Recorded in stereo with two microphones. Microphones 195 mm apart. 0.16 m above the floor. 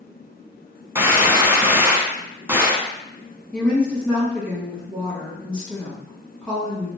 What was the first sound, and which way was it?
A gunshot, 15° right (ahead or behind).